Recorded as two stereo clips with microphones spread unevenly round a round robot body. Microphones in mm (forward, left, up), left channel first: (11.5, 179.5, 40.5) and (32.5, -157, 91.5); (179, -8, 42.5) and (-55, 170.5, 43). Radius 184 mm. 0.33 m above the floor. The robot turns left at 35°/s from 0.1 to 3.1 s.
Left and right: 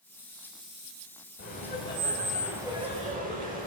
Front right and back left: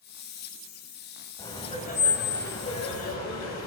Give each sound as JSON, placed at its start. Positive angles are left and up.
{"t": 1.4, "sound": "laughter", "azimuth_deg": 40, "distance_m": 3.0}